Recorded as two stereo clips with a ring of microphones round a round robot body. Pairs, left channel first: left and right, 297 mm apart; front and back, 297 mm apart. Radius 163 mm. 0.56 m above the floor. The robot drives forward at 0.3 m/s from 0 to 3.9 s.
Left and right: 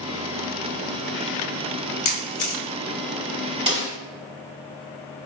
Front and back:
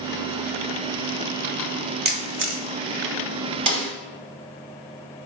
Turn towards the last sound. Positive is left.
turn(degrees=-165)